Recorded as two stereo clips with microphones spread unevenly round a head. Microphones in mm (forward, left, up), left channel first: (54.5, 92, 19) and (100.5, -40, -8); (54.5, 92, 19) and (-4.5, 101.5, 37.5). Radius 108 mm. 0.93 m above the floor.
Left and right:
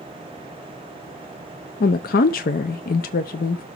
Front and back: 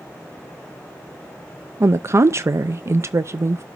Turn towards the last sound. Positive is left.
turn(degrees=120)